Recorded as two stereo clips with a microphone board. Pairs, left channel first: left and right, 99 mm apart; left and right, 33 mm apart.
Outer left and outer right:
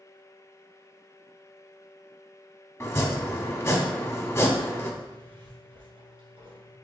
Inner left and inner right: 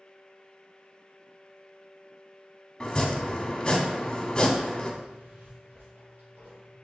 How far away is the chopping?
About 0.8 m.